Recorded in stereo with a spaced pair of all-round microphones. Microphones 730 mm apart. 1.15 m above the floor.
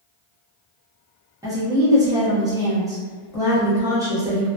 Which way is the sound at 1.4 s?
5° right (ahead or behind).